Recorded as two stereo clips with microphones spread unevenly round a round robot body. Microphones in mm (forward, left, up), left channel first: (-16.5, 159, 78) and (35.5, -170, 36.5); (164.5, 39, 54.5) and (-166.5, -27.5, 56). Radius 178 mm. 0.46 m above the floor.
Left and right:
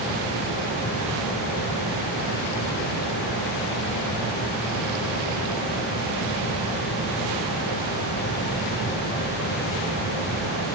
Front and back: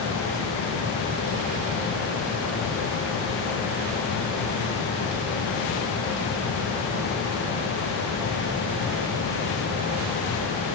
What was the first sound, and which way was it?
Only background noise.